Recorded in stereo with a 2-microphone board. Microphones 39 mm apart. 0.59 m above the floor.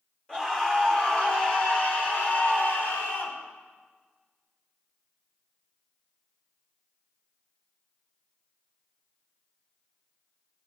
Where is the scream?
20° left (ahead or behind), 3.5 m; by 3.4 s 65° left (ahead or behind), 2 m.